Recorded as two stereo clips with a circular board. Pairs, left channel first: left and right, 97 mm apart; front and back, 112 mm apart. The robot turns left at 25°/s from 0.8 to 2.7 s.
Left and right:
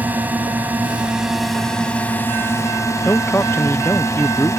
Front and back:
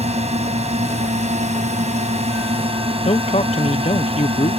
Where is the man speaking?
25° left.